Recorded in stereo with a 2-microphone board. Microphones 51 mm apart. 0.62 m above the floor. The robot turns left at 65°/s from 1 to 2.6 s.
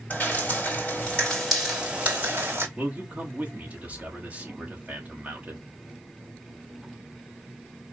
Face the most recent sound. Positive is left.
turn(degrees=-30)  # may be behind; listen again after turning